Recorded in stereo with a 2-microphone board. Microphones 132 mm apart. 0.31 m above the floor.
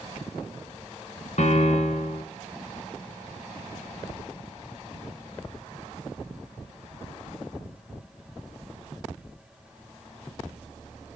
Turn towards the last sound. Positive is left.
turn(degrees=65)  # may be behind; listen again after turning